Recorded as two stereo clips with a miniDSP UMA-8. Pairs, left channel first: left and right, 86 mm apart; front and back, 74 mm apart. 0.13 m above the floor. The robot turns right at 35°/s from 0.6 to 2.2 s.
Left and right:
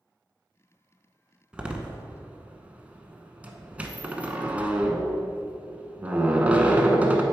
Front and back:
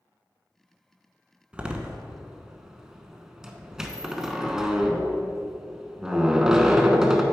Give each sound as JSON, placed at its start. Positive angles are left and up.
{"t": 1.5, "sound": "a door slam", "azimuth_deg": -140, "distance_m": 0.7}